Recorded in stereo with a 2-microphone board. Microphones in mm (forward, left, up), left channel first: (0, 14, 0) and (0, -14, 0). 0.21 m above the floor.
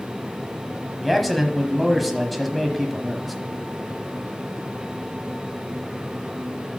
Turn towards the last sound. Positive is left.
turn(degrees=0)  # may be behind; listen again after turning